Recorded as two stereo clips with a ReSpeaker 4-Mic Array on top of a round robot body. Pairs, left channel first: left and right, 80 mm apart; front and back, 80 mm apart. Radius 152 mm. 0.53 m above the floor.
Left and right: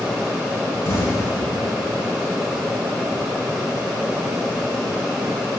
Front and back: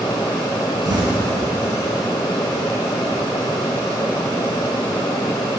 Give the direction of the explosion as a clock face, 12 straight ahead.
7 o'clock.